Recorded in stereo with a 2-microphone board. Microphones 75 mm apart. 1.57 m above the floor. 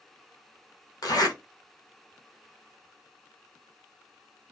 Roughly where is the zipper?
Left.